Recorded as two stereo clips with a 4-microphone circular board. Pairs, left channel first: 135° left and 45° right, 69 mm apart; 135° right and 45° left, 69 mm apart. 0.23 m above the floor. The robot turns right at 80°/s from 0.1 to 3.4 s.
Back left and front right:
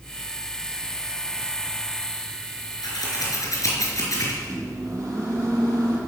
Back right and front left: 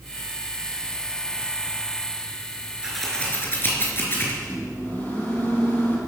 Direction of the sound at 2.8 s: 125° left.